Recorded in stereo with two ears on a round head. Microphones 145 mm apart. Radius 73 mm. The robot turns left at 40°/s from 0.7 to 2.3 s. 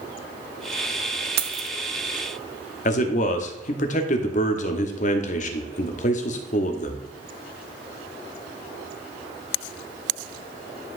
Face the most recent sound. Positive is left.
turn(degrees=50)  # may be behind; listen again after turning